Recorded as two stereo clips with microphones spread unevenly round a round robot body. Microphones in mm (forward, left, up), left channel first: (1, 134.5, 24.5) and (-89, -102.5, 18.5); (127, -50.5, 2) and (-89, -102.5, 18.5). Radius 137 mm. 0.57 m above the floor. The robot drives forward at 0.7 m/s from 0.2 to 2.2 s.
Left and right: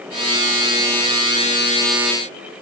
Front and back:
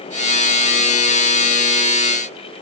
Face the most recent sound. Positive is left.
No sound to turn to.